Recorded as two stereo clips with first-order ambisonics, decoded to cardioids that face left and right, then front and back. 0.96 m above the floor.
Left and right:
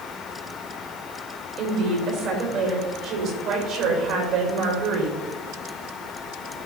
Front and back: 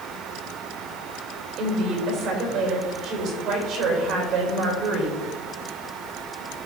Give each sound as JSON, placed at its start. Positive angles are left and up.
{"t": 1.6, "sound": "a woman speaking", "azimuth_deg": -130, "distance_m": 3.5}